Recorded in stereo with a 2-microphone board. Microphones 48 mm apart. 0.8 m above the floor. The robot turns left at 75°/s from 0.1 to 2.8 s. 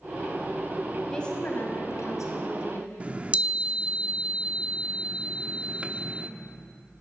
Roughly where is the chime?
Right.